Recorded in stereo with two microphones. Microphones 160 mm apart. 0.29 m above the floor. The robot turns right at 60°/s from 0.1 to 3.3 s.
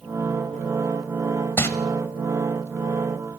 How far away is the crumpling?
About 1.1 m.